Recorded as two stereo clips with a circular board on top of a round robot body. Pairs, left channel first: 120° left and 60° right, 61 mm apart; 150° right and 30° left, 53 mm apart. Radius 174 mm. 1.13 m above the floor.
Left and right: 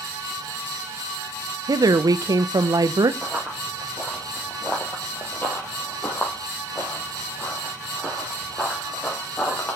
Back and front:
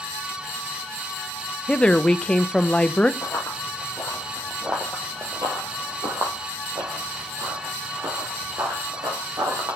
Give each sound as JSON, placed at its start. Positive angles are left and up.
{"t": 1.7, "sound": "a woman speaking", "azimuth_deg": -80, "distance_m": 0.6}
{"t": 3.2, "sound": "running footsteps", "azimuth_deg": -130, "distance_m": 1.5}